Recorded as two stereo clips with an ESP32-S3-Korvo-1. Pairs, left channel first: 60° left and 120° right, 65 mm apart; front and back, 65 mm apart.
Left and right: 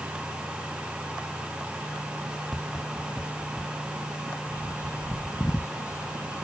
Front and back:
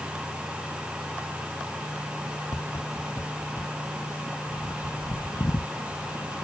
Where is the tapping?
35° right.